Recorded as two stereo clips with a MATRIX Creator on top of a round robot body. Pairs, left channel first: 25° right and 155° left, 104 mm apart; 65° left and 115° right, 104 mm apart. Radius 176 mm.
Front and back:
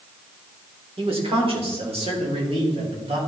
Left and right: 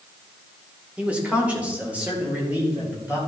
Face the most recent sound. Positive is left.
turn(degrees=175)